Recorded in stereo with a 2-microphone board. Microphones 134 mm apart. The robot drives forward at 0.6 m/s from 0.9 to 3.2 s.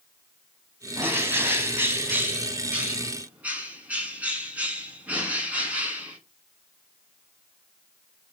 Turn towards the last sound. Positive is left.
turn(degrees=-10)  # may be behind; listen again after turning